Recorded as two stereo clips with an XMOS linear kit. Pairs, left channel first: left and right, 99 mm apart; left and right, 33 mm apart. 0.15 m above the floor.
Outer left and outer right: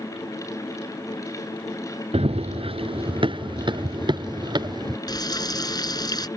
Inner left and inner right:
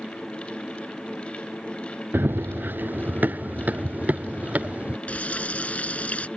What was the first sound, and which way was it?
Running footsteps, 80° right.